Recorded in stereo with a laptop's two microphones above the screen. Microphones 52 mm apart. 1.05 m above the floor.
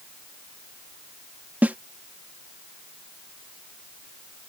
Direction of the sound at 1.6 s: 30° right (ahead or behind).